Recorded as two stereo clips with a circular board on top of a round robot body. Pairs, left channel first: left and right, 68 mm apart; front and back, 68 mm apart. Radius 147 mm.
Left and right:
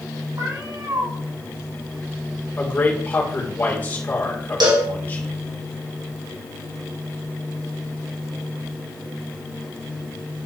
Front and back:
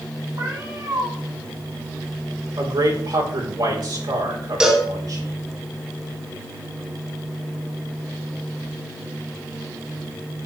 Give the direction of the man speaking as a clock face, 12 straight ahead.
7 o'clock.